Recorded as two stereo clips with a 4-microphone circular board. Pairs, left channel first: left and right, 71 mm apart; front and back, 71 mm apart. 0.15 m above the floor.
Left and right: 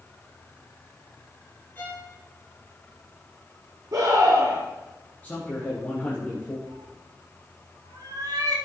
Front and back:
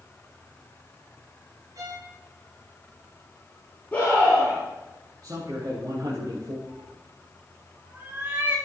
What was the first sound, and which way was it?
A violin, 150° left.